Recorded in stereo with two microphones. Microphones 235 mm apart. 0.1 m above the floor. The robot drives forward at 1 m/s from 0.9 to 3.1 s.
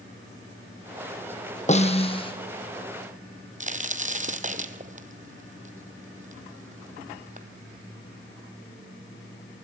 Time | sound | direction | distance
1.7 | a snare drum | 30° left (ahead or behind) | 1.5 m
3.6 | a crack | 30° right (ahead or behind) | 1.2 m